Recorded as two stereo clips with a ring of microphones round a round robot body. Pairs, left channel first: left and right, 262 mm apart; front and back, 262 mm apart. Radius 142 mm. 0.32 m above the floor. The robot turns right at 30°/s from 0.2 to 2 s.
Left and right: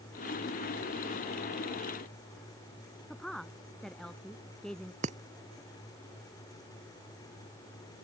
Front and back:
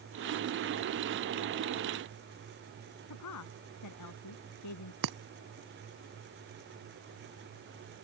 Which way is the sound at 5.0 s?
155° right.